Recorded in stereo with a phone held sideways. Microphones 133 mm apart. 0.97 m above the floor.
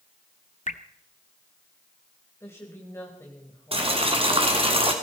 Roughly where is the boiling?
Right.